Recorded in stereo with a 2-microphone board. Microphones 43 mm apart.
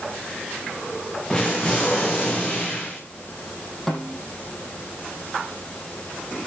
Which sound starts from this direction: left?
An explosion, at 1.3 s.